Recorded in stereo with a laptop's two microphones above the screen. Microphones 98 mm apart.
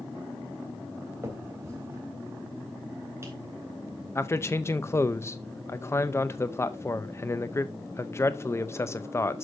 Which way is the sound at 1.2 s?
30° right (ahead or behind).